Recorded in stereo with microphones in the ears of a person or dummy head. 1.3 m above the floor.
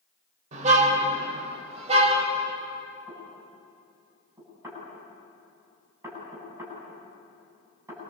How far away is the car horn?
About 2.5 m.